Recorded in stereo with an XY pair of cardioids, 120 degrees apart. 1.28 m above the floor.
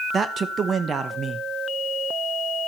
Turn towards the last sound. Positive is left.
turn(degrees=-35)